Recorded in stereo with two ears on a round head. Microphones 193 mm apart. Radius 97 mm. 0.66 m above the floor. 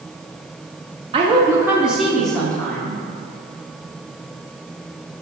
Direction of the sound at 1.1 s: 25° right (ahead or behind).